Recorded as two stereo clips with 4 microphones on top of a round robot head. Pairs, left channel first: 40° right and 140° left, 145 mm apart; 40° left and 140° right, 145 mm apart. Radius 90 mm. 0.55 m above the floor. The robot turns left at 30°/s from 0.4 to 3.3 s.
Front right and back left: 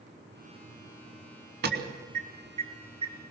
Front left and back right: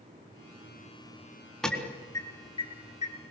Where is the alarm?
125° left, 3.5 m; by 3.3 s 75° left, 3.5 m.